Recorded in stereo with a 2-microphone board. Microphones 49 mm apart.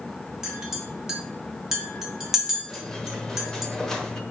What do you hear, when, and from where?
0.4 s a clink: 10° right (ahead or behind), 2.0 m
2.7 s a squeak: 10° left (ahead or behind), 1.2 m